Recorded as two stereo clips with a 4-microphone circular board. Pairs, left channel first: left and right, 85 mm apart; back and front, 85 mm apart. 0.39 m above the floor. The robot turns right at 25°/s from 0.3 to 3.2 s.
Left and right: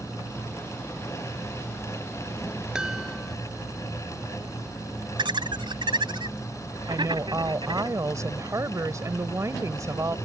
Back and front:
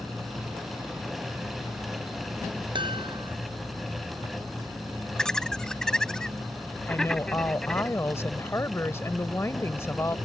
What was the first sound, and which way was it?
A chime, 10° right.